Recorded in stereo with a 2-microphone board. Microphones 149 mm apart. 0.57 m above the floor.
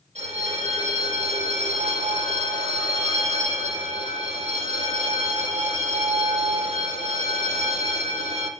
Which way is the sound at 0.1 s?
50° right (ahead or behind).